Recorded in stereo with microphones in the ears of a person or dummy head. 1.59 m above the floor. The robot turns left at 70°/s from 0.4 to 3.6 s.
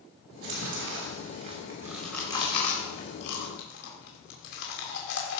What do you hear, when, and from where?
0.3 s chewing: 60° right (ahead or behind), 3 m; by 5.4 s 65° left (ahead or behind), 3 m